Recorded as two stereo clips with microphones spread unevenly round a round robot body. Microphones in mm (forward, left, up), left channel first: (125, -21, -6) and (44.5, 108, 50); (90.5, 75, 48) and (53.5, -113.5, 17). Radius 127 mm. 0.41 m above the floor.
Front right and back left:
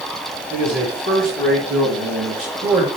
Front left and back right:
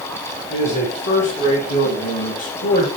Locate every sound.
0.5 s a man speaking: 120° left, 4.5 m; by 2.9 s 70° left, 2 m